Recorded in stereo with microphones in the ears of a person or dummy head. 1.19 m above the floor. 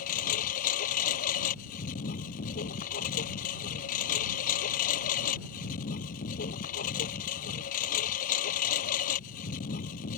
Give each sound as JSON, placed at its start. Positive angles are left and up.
{"t": 0.0, "sound": "a lawn mower", "side_deg": 40}